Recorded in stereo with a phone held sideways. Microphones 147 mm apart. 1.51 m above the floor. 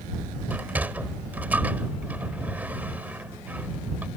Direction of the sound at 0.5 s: 10° right (ahead or behind).